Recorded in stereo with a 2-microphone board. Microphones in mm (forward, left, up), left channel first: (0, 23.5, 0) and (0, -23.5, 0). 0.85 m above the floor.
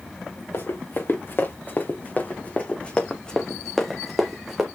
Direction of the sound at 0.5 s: 55° left (ahead or behind).